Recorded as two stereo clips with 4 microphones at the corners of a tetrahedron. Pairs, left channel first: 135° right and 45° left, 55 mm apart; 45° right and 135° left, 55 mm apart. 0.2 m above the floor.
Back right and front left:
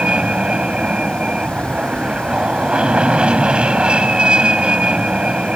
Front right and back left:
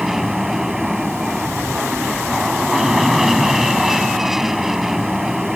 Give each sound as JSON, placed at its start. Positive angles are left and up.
{"t": 0.0, "sound": "an aircraft", "azimuth_deg": 60}